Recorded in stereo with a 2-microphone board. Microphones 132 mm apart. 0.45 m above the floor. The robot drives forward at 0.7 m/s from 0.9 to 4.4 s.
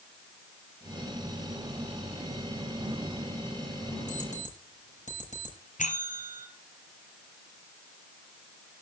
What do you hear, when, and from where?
4.1 s an alarm clock: 65° left (ahead or behind), 7.5 m
5.8 s a bell: 70° left (ahead or behind), 2 m